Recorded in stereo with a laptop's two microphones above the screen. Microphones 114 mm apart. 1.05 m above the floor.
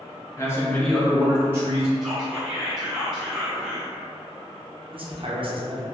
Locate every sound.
0.4 s a man speaking: 25° left (ahead or behind), 0.6 m; by 1.9 s 30° right (ahead or behind), 0.7 m
2.0 s whispering: 5° right (ahead or behind), 1.3 m
4.9 s a man speaking: 50° right (ahead or behind), 0.6 m